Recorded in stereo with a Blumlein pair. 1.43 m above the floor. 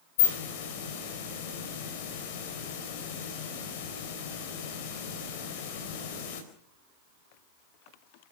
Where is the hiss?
50° left, 4 m.